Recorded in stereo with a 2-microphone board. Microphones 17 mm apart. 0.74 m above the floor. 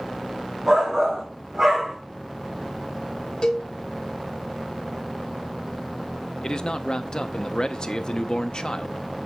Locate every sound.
0.7 s a shout: 40° right (ahead or behind), 2.5 m; by 2.0 s 25° right (ahead or behind), 1.4 m
3.4 s a cowbell: 55° left (ahead or behind), 1.6 m
6.4 s a man speaking: 45° left (ahead or behind), 0.6 m